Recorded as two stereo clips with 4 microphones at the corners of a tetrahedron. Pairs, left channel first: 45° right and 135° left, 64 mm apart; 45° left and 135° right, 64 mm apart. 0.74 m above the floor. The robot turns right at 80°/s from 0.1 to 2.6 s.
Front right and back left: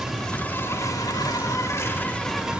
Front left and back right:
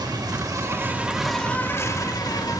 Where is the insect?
140° right, 1.0 m; by 2.6 s 60° left, 1.0 m.